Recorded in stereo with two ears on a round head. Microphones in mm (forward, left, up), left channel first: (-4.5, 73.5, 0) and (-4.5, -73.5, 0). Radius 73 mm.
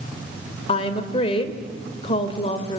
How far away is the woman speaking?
About 2.5 m.